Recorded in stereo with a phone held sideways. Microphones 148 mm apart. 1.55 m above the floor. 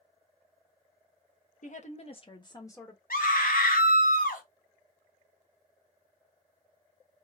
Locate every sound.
1.6 s a woman speaking: 60° left (ahead or behind), 0.9 m; by 3.0 s 15° left (ahead or behind), 1.1 m
3.1 s a scream: 80° left, 1.1 m